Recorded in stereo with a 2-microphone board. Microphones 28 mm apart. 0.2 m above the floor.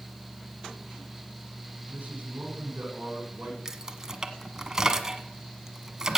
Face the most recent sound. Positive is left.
turn(degrees=-15)  # may be behind; listen again after turning